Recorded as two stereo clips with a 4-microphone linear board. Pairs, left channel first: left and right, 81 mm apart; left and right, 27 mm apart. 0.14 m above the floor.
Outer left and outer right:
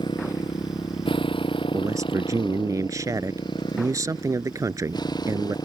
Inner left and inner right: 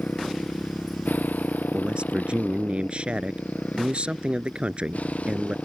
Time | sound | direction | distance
0.0 | a motorcycle | 70° left (ahead or behind) | ?
1.7 | a man speaking | 40° right (ahead or behind) | ?